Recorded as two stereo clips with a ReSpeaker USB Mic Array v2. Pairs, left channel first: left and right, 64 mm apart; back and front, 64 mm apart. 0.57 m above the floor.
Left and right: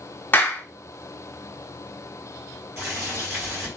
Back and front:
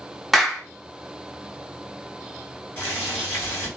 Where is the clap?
90° left, 0.6 m.